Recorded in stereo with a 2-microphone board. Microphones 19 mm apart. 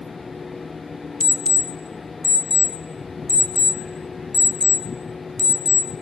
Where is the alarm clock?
30° left (ahead or behind), 0.7 m.